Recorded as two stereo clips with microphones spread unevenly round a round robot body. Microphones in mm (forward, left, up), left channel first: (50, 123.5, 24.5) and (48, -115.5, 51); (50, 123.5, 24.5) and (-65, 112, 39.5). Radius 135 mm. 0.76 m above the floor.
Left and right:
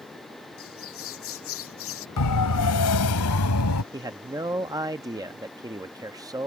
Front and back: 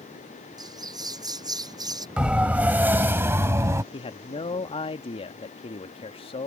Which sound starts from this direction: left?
A siren, at 2.2 s.